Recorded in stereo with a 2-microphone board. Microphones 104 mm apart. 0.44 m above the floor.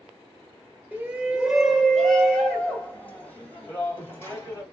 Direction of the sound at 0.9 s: 15° right (ahead or behind).